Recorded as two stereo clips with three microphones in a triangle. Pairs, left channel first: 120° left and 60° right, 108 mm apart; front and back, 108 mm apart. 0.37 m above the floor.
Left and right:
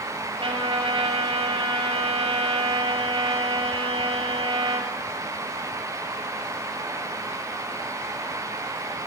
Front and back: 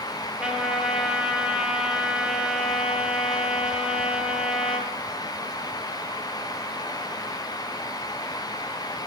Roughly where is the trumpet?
Right.